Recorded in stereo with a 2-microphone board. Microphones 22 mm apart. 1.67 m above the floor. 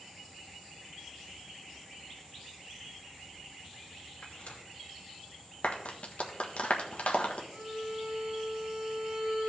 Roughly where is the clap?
Left.